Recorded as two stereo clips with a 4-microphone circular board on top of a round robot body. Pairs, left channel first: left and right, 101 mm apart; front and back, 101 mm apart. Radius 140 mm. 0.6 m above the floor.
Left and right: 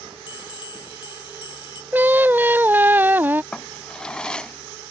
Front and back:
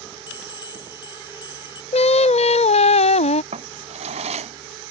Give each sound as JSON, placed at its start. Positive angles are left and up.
{"t": 0.3, "sound": "a bell", "azimuth_deg": 45}
{"t": 1.9, "sound": "singing", "azimuth_deg": -15}
{"t": 3.5, "sound": "a drawer", "azimuth_deg": 170}